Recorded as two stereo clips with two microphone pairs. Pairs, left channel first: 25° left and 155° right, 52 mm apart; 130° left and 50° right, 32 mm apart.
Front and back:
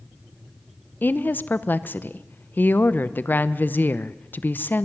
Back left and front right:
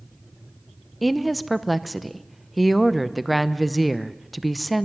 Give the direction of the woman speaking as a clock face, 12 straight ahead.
11 o'clock.